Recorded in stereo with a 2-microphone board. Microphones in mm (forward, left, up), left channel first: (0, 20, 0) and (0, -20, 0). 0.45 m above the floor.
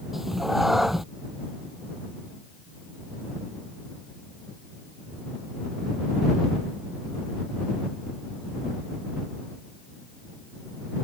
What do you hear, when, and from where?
0.1 s a cat meowing: 5° right (ahead or behind)